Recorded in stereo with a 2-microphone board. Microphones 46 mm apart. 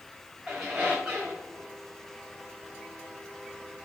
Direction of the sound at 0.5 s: 15° right (ahead or behind).